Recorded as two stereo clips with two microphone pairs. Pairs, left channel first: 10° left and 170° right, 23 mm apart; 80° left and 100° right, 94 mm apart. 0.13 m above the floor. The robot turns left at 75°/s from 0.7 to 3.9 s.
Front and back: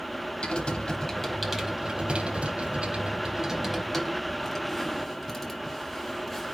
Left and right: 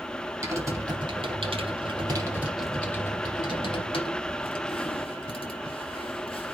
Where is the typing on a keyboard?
40° right, 4.5 m; by 6.5 s 80° left, 4.5 m.